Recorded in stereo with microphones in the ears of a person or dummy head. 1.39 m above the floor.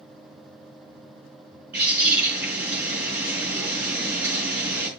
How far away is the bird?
About 5 m.